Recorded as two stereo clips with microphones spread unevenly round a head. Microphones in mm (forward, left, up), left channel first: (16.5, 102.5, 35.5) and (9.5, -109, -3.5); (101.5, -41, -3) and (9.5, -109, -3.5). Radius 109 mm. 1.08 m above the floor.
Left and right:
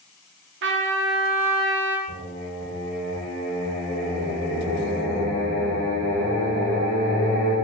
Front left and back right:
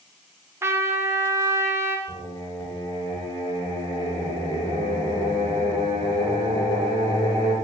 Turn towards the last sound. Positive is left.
turn(degrees=-35)